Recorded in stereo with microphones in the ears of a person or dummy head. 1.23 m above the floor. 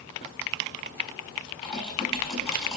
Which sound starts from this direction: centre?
Typing on a keyboard, at 1.6 s.